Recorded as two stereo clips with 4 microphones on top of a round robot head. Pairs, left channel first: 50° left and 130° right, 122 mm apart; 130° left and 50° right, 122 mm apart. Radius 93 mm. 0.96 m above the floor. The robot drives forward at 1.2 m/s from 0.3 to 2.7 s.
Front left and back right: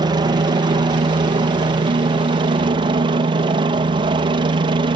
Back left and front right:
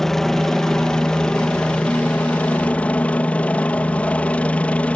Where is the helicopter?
145° right; by 5.0 s 155° right.